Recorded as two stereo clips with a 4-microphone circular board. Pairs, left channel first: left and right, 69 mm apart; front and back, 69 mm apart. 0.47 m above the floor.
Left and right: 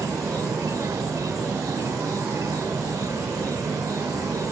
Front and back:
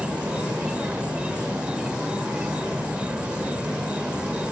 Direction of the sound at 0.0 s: 110° right.